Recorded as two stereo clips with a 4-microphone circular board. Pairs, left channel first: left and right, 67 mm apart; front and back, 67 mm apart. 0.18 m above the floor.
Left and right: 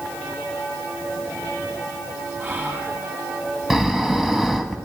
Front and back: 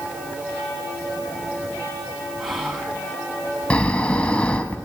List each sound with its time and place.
2.4 s whispering: 95° right, 1.3 m
3.7 s snoring: 25° right, 0.8 m